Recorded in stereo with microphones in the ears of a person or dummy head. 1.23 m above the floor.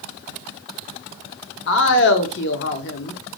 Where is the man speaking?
60° left (ahead or behind), 0.6 m.